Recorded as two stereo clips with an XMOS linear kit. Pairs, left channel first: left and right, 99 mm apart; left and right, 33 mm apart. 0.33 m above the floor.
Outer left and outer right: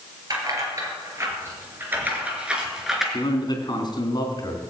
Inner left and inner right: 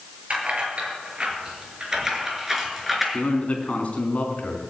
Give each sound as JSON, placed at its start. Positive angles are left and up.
{"t": 0.3, "sound": "keys jangling", "side_deg": -40, "distance_m": 5.0}
{"t": 3.1, "sound": "a man speaking", "side_deg": 45, "distance_m": 3.5}